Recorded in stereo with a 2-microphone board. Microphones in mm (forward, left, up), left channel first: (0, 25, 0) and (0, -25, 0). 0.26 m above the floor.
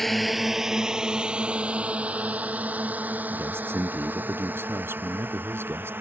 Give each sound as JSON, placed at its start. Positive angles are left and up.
{"t": 0.0, "sound": "a drone", "side_deg": 5}
{"t": 3.3, "sound": "a man speaking", "side_deg": -50}